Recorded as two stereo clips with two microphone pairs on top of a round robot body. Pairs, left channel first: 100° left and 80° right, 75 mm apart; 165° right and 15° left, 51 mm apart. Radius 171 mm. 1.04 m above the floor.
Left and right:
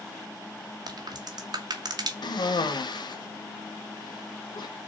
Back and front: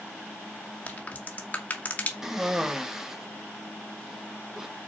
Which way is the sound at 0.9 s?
110° right.